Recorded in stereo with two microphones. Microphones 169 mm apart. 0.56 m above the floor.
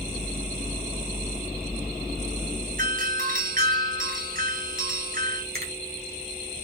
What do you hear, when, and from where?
2.8 s a doorbell: 55° right (ahead or behind), 3 m
5.5 s a finger snap: 65° right (ahead or behind), 3.5 m